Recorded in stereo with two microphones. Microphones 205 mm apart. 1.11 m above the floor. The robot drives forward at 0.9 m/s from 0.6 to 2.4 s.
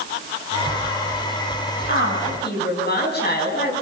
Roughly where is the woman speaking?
Left.